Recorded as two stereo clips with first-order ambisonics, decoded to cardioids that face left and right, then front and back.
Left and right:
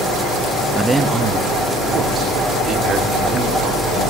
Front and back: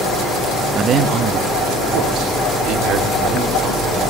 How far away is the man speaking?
About 0.8 m.